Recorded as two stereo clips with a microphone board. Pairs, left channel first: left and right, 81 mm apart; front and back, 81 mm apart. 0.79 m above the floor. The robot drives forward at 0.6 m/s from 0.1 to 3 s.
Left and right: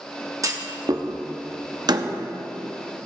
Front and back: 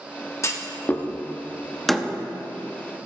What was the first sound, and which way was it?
A clunk, 50° right.